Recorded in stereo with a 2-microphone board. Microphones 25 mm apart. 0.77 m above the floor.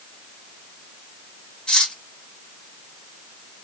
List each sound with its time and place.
1.7 s cutlery clinking: 40° left (ahead or behind), 1.0 m